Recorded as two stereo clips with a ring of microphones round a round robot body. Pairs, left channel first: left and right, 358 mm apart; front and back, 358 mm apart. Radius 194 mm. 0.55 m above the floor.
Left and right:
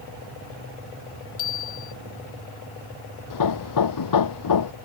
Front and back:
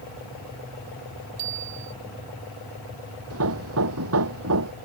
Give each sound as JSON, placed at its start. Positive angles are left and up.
{"t": 1.4, "sound": "a bicycle bell", "azimuth_deg": 130}
{"t": 3.3, "sound": "hammering", "azimuth_deg": 125}